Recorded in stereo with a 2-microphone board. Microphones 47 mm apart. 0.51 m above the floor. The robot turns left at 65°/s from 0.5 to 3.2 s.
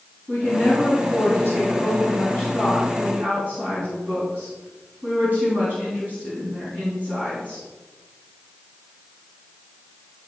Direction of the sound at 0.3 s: 135° left.